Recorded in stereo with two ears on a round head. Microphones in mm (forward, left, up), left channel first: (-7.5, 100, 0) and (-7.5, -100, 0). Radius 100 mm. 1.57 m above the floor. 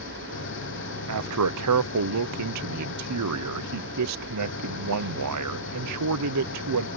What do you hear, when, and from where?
0.0 s an engine running: 60° left (ahead or behind)
1.1 s a man speaking: 85° right